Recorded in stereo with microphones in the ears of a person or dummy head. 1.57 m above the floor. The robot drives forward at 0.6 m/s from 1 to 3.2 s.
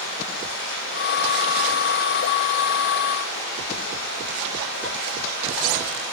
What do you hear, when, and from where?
0.0 s running water: 75° left (ahead or behind), 5 m; by 6.1 s 70° left (ahead or behind), 5 m